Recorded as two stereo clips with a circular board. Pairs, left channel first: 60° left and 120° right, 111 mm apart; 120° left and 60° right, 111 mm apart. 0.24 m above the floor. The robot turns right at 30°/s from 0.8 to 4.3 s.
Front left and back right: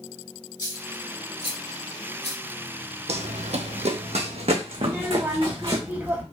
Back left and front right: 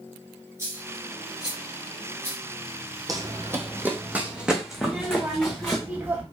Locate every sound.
0.6 s a dropped coin: straight ahead, 2.0 m; by 2.4 s 50° left, 2.0 m
3.1 s running footsteps: 115° right, 0.7 m; by 5.8 s 165° right, 1.7 m
4.8 s a child speaking: 95° right, 1.1 m